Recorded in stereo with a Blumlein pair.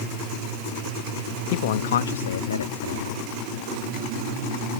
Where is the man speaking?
50° left; by 3.3 s 80° left.